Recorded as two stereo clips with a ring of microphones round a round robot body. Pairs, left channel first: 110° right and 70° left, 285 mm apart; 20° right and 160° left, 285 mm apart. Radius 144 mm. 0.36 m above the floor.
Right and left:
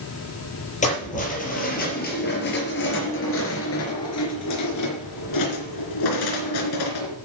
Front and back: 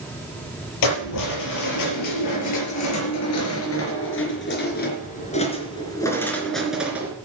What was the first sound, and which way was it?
Keys jangling, 45° right.